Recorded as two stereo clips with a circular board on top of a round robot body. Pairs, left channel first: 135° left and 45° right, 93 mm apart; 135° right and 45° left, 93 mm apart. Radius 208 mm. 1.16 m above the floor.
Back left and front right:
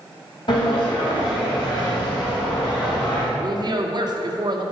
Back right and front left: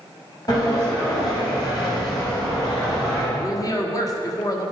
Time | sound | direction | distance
0.5 | a sliding door | 175° left | 3 m
3.4 | a woman speaking | 85° right | 1.5 m